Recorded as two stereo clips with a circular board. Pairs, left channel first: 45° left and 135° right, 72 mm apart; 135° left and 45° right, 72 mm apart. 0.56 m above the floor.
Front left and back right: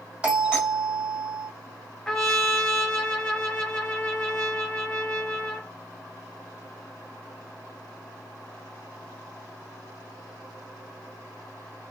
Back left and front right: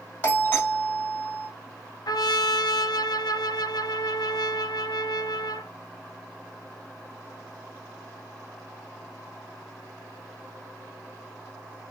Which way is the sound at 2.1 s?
130° left.